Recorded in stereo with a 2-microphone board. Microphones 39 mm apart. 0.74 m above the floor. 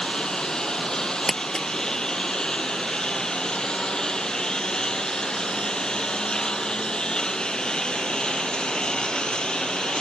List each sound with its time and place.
0.0 s a lawn mower: 15° left (ahead or behind); by 10.0 s 20° left (ahead or behind)
1.3 s crumpling: 15° left (ahead or behind)